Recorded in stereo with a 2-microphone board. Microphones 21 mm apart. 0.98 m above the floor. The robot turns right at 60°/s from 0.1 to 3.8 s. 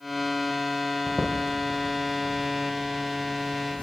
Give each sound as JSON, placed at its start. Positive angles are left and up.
{"t": 1.1, "sound": "footsteps", "side_deg": -50, "distance_m": 1.9}